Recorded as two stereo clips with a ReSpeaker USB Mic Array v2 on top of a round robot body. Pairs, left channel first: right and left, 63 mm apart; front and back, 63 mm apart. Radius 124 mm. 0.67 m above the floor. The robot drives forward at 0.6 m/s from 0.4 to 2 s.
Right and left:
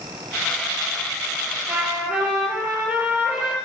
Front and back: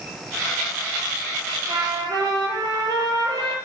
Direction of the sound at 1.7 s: 155° left.